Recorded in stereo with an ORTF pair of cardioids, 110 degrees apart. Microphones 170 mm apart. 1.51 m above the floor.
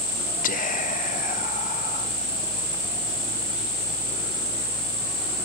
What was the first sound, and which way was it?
Whispering, 55° left.